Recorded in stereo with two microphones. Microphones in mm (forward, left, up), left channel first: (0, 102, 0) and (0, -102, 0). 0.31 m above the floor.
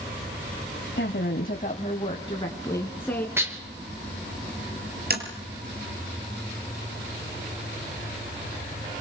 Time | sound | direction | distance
1.0 | a woman speaking | 60° left (ahead or behind) | 2.0 m
3.4 | dishes clattering | 10° right (ahead or behind) | 4 m
5.1 | tapping | 50° right (ahead or behind) | 5.5 m